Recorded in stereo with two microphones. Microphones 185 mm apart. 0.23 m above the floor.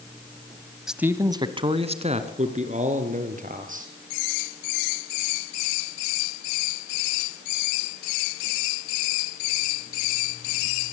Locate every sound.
0.9 s a man speaking: centre (ahead or behind), 1.1 m; by 3.9 s 45° right (ahead or behind), 4.5 m